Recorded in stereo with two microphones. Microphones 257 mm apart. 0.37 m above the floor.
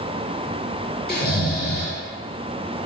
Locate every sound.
1.1 s snoring: 35° left (ahead or behind), 0.7 m